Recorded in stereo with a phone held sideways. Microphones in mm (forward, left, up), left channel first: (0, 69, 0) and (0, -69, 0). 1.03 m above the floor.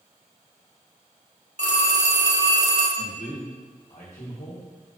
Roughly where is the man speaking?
Left.